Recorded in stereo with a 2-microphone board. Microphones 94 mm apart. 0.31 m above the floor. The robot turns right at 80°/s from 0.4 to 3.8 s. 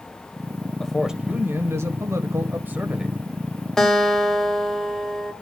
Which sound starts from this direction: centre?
A guitar, at 3.8 s.